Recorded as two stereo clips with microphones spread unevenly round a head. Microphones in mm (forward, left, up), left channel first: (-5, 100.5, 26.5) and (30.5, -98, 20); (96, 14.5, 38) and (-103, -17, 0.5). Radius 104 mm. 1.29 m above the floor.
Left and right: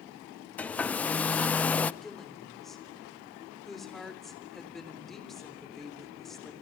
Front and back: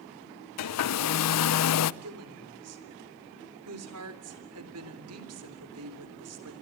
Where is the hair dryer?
15° left, 0.5 m.